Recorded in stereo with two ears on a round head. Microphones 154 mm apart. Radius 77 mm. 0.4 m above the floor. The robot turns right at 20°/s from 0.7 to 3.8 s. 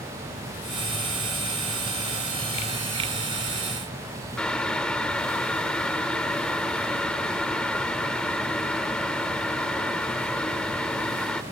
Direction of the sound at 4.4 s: 5° left (ahead or behind).